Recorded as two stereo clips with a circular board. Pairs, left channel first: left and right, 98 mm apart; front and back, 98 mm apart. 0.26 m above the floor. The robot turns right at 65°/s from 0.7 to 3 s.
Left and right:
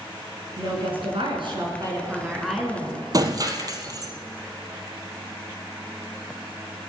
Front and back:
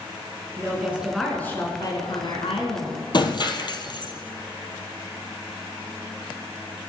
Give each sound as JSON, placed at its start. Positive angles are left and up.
{"t": 0.6, "sound": "a woman speaking", "azimuth_deg": -120, "distance_m": 3.5}
{"t": 3.1, "sound": "breaking glass", "azimuth_deg": -40, "distance_m": 1.3}